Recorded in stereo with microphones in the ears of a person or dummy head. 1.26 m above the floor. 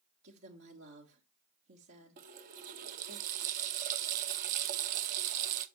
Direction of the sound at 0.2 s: 70° right (ahead or behind).